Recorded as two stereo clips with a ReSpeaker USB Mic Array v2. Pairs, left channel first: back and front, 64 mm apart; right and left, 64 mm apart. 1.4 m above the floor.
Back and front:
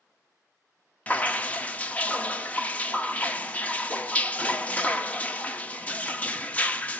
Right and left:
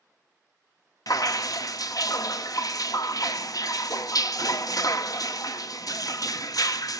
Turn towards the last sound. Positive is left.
turn(degrees=-115)